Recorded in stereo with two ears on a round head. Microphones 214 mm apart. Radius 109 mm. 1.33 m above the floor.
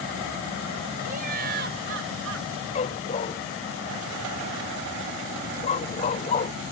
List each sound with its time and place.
1.1 s laughter: 35° right (ahead or behind); by 2.5 s 60° right (ahead or behind)
2.8 s a dog barking: 25° left (ahead or behind)